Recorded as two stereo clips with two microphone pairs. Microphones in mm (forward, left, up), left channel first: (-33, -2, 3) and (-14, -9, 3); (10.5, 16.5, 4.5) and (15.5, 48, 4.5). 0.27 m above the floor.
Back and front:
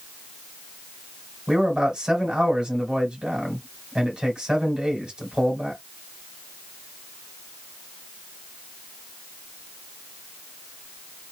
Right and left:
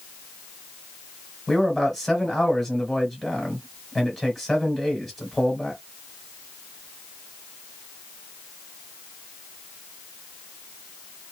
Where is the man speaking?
15° right, 1.7 m.